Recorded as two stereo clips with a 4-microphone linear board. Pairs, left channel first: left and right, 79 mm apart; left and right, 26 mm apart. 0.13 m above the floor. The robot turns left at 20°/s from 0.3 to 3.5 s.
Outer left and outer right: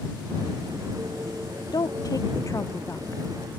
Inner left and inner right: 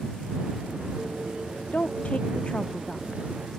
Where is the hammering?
No hammering in this recording.